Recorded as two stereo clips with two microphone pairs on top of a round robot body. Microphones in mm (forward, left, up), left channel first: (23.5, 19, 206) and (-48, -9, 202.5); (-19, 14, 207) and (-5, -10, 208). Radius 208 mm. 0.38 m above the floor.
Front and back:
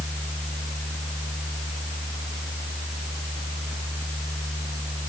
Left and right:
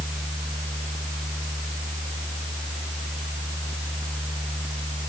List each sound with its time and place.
Only background noise.